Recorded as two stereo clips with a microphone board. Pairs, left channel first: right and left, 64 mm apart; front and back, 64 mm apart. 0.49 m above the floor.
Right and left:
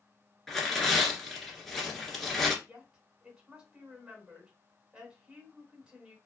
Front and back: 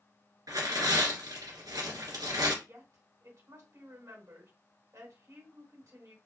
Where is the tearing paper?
175° right, 1.3 m.